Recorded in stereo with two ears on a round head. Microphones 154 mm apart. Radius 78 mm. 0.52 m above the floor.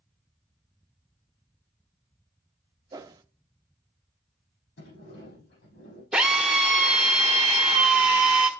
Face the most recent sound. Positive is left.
turn(degrees=-5)  # may be behind; listen again after turning